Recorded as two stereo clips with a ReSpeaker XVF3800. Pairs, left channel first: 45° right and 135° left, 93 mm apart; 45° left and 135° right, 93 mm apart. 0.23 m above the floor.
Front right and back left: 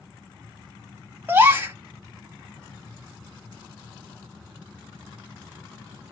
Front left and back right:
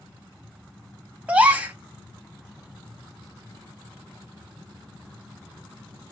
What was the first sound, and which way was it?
A gasp, 170° left.